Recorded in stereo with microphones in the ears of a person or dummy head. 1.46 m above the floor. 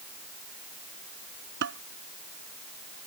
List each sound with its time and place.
1.6 s dishes clattering: 65° right (ahead or behind)